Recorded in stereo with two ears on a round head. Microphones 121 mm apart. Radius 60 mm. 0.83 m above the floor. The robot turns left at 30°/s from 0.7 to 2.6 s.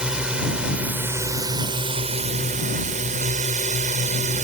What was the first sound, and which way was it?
A drone, 10° right.